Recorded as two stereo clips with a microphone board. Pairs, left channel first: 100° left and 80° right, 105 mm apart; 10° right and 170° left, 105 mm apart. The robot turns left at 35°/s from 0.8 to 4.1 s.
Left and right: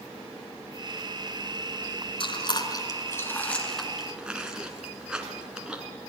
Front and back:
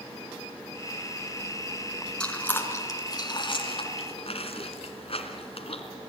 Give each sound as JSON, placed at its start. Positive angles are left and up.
{"t": 2.2, "sound": "chewing", "azimuth_deg": 70, "distance_m": 2.5}